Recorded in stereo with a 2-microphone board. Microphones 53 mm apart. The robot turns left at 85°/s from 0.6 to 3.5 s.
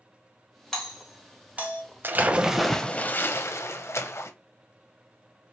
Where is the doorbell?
10° left (ahead or behind), 1.5 m; by 1.8 s 30° right (ahead or behind), 1.5 m.